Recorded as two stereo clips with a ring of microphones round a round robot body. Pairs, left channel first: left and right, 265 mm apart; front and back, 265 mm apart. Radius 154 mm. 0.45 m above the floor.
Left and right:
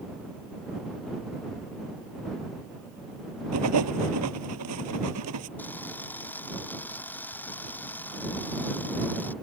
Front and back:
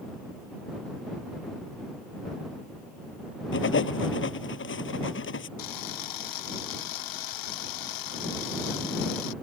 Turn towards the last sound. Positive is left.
turn(degrees=5)